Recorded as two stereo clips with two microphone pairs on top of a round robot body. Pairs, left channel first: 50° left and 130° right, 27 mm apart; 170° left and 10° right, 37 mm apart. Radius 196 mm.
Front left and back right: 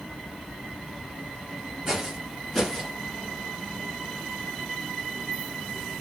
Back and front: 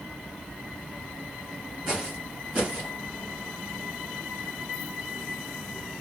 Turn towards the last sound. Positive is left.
turn(degrees=-5)